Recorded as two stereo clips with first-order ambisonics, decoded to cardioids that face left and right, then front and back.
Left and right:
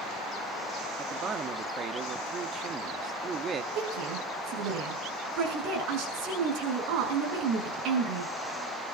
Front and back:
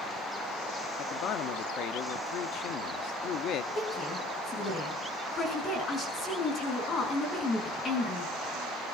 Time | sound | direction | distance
1.0 | a man speaking | 35° right | 0.9 m
3.8 | a woman speaking | 65° right | 6.5 m